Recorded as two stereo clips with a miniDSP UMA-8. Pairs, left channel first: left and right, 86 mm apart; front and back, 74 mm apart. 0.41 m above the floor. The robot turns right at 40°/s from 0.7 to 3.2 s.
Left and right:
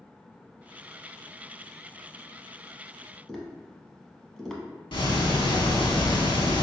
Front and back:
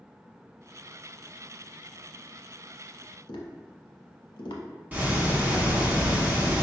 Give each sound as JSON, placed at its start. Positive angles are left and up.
{"t": 3.3, "sound": "tapping", "azimuth_deg": 5, "distance_m": 0.7}
{"t": 4.9, "sound": "ticking", "azimuth_deg": 115, "distance_m": 0.7}